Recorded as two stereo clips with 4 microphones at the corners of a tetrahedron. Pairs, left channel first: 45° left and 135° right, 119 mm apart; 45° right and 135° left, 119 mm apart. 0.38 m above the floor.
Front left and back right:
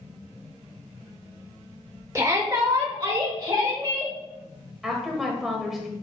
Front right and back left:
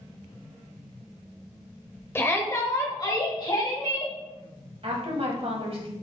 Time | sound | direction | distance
2.1 | a shout | 95° right | 1.0 m
4.8 | a woman speaking | 135° left | 1.7 m